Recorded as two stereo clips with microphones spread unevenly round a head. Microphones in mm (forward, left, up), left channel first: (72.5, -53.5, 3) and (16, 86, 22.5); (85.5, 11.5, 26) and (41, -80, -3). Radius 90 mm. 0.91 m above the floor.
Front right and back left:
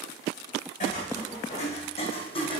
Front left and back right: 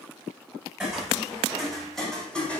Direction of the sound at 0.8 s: 25° right.